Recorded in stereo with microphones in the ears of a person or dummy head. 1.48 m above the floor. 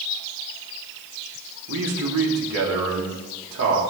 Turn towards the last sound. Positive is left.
turn(degrees=-75)  # may be behind; listen again after turning